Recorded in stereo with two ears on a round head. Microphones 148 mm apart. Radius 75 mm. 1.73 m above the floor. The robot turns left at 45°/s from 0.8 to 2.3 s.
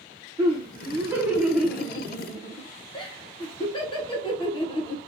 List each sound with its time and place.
0.4 s laughter: 150° right, 1.1 m; by 5.0 s 145° left, 1.1 m